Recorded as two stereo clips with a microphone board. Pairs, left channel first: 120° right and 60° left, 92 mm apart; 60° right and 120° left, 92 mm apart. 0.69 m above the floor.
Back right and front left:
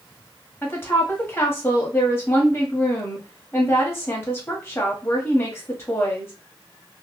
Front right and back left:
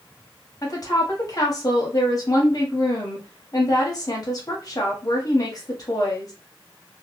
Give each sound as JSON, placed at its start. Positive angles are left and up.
{"t": 0.6, "sound": "a woman speaking", "azimuth_deg": -70, "distance_m": 1.2}